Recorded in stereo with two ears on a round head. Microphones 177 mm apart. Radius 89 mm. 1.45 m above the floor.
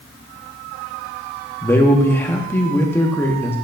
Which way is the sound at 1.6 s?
10° left (ahead or behind).